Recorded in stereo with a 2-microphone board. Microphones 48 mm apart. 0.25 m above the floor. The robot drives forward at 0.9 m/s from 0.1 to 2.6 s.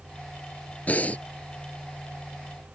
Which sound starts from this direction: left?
Breathing, at 0.9 s.